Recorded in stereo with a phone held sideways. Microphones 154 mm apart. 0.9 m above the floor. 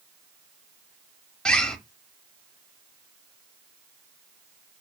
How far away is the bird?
About 0.7 m.